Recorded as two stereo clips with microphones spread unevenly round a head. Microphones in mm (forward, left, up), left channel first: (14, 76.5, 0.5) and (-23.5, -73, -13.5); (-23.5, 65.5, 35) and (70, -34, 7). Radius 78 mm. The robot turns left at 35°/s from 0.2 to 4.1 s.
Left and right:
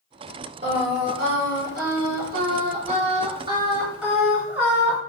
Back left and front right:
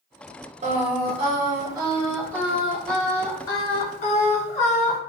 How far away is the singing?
About 0.7 m.